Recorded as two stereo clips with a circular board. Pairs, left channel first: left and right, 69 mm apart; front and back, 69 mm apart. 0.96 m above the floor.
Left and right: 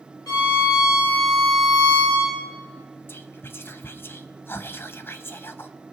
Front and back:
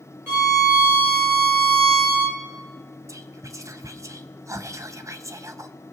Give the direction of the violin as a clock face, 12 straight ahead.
8 o'clock.